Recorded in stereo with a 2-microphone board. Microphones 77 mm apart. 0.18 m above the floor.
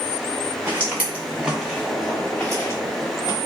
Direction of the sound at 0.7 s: 30° right (ahead or behind).